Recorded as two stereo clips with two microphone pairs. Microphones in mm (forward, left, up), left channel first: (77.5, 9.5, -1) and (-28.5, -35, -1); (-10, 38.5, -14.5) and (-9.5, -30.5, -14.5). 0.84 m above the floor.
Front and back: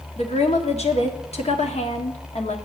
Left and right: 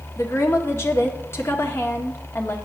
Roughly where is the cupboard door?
I don't hear a cupboard door.